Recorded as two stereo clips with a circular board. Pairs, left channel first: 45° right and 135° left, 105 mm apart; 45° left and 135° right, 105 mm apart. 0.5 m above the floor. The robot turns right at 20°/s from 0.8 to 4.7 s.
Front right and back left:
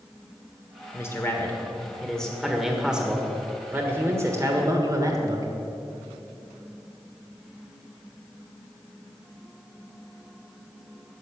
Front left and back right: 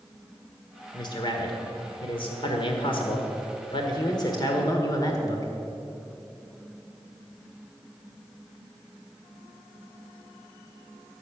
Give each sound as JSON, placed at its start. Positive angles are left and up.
{"t": 0.9, "sound": "a man speaking", "azimuth_deg": 15, "distance_m": 1.5}